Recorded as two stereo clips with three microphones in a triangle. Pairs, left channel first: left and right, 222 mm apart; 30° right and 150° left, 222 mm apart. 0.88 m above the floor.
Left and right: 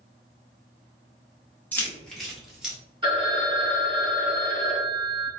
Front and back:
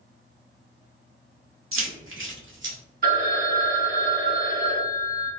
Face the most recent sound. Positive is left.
turn(degrees=-155)